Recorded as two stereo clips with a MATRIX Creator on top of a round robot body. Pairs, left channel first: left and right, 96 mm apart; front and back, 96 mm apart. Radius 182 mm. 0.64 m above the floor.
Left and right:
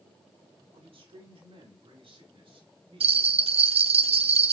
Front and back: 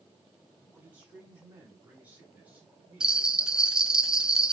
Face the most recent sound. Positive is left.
turn(degrees=-100)